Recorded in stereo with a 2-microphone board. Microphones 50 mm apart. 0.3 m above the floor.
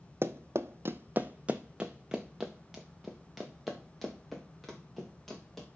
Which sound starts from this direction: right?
Running footsteps, at 0.2 s.